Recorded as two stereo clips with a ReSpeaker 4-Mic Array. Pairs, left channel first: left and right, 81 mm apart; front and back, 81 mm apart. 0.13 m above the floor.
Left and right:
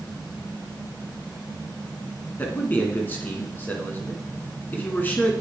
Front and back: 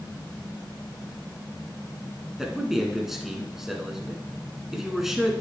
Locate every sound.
2.4 s a man speaking: 100° left, 1.3 m